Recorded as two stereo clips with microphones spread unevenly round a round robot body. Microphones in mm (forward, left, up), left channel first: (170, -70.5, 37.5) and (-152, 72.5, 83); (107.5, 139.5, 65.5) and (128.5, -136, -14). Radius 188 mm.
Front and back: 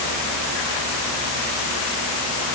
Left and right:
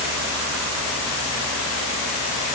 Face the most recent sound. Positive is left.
No sound to turn to.